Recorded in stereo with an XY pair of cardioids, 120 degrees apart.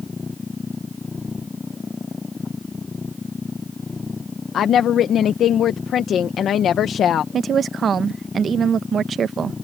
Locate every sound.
0.0 s a machine running: 25° left
4.5 s a woman speaking: 55° left
7.3 s a woman speaking: 40° right